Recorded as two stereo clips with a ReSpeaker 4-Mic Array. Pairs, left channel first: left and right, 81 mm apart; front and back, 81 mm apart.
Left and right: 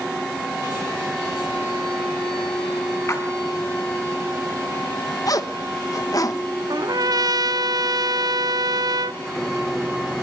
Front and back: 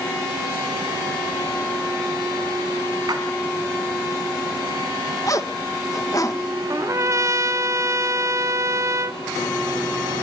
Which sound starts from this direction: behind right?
A trumpet, at 6.7 s.